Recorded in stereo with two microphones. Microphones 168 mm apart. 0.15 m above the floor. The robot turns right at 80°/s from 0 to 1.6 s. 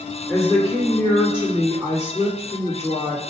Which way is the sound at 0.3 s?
145° left.